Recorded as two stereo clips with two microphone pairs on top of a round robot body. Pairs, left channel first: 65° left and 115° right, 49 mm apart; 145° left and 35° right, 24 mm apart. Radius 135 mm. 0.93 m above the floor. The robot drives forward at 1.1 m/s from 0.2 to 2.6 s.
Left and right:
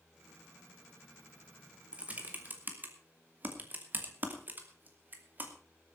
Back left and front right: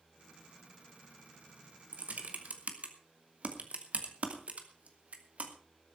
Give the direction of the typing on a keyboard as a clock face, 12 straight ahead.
2 o'clock.